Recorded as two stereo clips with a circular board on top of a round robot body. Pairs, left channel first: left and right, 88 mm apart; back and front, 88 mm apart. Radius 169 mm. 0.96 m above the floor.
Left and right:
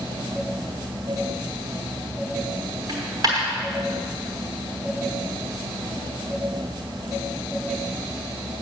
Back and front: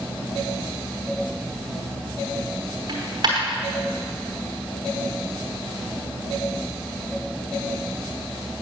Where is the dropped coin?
45° right, 1.0 m.